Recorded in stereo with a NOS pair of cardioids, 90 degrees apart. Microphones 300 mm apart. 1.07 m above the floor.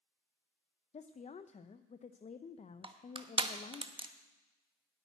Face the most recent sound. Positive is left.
turn(degrees=-15)